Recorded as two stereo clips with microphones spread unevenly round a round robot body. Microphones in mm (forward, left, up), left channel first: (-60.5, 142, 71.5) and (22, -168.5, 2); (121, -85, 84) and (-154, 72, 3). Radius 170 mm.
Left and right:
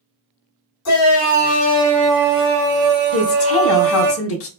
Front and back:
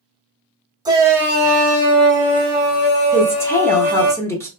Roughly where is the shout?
Left.